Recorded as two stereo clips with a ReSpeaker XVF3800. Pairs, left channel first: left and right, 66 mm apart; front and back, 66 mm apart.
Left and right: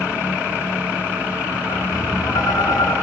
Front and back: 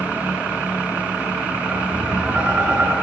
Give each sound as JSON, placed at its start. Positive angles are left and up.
{"t": 1.7, "sound": "tapping", "azimuth_deg": 115, "distance_m": 9.5}